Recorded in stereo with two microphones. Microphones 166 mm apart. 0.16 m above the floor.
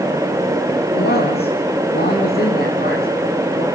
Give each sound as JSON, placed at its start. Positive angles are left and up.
{"t": 0.9, "sound": "a man speaking", "side_deg": 70, "distance_m": 9.0}